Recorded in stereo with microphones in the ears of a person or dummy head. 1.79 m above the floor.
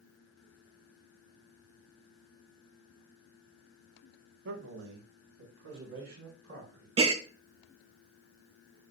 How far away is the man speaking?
About 1.7 m.